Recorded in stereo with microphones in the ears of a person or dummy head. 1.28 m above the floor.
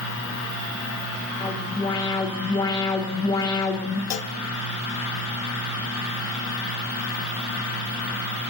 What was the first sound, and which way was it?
A fan, 70° left (ahead or behind).